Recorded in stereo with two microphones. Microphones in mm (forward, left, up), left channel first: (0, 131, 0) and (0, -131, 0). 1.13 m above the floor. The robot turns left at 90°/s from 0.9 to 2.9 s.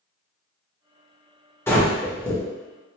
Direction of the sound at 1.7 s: 10° left (ahead or behind).